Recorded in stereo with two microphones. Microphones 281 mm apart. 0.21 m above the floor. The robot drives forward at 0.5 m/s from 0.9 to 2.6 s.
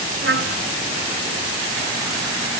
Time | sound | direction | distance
0.2 | a trumpet | 45° right (ahead or behind) | 1.1 m